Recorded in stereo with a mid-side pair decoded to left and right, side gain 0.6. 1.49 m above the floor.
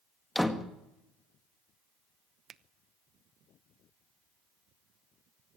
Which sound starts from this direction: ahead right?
A finger snap, at 2.5 s.